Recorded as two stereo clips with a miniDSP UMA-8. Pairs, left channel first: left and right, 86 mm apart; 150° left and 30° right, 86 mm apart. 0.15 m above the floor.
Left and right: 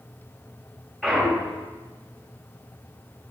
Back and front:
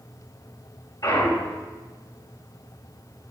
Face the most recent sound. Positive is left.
turn(degrees=180)